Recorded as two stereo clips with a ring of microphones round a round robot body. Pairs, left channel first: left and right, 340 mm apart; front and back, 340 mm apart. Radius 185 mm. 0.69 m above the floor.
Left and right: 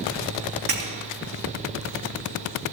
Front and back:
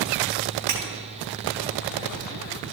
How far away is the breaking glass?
About 3.5 m.